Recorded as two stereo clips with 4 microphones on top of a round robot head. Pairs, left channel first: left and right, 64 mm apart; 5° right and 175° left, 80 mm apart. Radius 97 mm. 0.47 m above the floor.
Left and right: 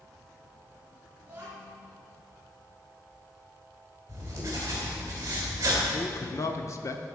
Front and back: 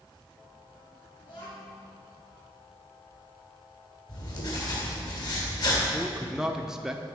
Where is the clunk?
No clunk in this recording.